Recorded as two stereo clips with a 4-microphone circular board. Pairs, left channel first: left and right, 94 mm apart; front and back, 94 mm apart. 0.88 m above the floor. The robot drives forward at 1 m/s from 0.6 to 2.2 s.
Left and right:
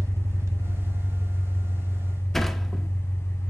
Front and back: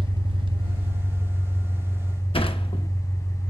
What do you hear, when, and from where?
0.0 s an engine running: 150° right, 0.8 m; by 3.5 s 170° right, 2.5 m
2.3 s a sliding door: 5° left, 0.8 m